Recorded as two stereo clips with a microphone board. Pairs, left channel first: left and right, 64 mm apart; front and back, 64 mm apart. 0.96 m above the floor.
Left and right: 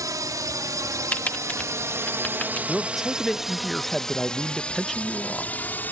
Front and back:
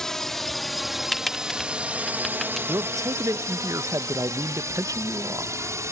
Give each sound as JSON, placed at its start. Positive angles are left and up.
{"t": 0.0, "sound": "a drone", "azimuth_deg": -80}
{"t": 1.1, "sound": "typing on a keyboard", "azimuth_deg": 80}
{"t": 2.7, "sound": "a man speaking", "azimuth_deg": 180}